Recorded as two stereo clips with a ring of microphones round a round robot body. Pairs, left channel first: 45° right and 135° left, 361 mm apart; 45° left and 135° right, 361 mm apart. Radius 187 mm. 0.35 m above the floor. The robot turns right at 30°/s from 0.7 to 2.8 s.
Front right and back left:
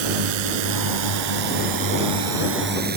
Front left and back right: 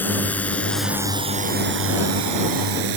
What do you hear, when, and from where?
0.0 s a drone: 130° left; by 3.0 s 160° right